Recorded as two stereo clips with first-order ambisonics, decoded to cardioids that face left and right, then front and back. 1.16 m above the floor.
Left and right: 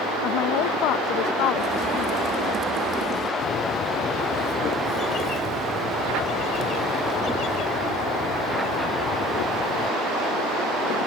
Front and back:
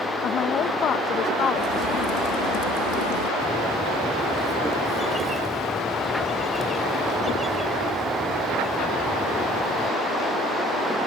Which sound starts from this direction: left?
A bird, at 3.4 s.